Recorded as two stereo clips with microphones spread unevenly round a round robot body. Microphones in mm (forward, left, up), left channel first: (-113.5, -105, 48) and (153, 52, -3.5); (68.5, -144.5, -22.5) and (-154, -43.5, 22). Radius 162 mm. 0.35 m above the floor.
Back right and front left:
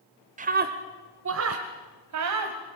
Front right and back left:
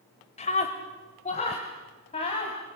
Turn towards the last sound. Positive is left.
turn(degrees=40)